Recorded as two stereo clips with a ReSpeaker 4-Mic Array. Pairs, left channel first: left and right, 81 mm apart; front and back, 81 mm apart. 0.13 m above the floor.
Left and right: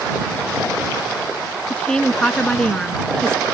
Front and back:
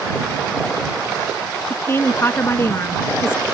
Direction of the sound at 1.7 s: 20° left.